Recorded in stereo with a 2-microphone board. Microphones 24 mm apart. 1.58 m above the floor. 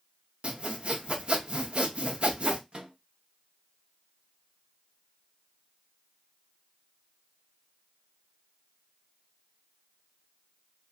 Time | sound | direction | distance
0.4 | sawing | 50° right (ahead or behind) | 0.6 m
2.7 | a microwave | 45° right (ahead or behind) | 0.7 m